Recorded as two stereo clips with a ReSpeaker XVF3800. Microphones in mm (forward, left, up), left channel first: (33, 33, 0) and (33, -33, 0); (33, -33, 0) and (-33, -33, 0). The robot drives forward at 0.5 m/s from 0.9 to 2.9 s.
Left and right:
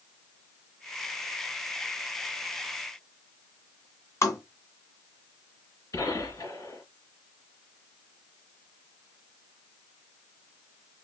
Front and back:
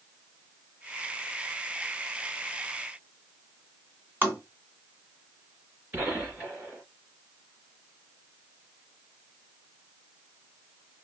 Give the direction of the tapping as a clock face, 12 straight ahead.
8 o'clock.